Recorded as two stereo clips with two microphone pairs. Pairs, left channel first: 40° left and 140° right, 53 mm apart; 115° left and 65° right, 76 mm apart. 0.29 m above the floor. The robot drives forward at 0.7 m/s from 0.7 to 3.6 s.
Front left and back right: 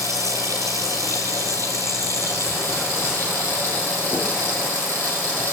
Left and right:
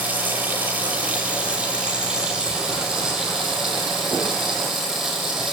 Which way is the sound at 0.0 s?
135° right.